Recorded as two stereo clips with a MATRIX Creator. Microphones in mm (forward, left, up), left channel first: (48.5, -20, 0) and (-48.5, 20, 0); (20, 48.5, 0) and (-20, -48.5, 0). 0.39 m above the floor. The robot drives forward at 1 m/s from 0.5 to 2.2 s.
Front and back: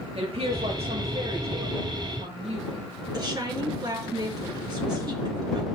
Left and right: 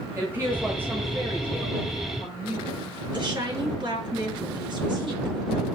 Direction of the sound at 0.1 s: Straight behind.